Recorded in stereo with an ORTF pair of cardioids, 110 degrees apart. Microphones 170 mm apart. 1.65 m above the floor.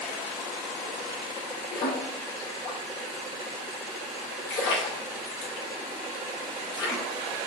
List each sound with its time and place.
1.7 s a splash: 60° left, 2 m